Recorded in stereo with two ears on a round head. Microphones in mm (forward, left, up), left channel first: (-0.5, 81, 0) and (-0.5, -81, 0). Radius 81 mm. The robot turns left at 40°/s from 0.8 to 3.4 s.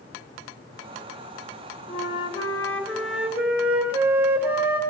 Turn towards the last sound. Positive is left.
turn(degrees=-15)